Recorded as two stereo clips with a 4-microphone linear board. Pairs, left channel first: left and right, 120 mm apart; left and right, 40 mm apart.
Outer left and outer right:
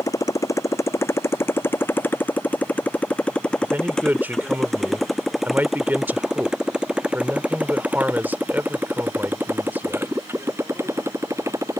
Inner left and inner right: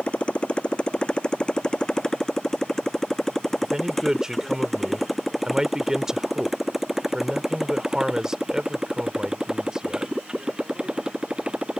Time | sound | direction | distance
0.0 | a motorcycle | 30° left (ahead or behind) | ?
3.6 | a man speaking | 15° right (ahead or behind) | ?